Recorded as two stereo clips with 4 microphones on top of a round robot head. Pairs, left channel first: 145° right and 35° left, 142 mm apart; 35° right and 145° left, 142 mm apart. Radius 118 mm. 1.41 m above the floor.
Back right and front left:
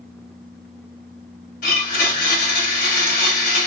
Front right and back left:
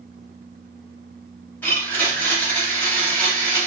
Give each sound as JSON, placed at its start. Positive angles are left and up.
{"t": 1.6, "sound": "a blender", "azimuth_deg": -110, "distance_m": 0.9}